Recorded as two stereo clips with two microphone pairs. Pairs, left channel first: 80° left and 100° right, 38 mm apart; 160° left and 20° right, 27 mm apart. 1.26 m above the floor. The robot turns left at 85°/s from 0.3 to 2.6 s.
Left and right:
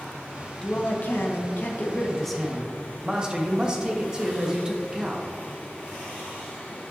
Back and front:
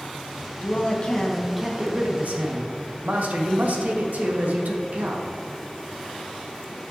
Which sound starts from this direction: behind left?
A man speaking, at 0.6 s.